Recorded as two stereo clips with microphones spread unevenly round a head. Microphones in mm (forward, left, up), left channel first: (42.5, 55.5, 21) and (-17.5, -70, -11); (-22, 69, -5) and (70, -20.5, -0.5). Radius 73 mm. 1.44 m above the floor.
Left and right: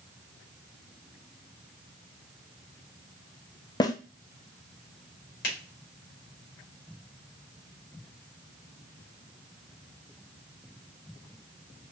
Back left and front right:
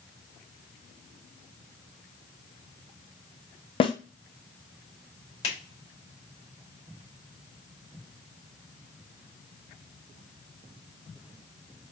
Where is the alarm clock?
I don't hear an alarm clock.